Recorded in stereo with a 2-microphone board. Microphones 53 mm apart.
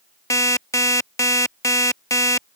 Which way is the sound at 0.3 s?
75° left (ahead or behind).